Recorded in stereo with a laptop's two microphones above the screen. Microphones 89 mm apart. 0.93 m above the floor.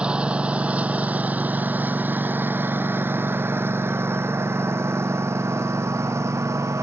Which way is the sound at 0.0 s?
10° right (ahead or behind).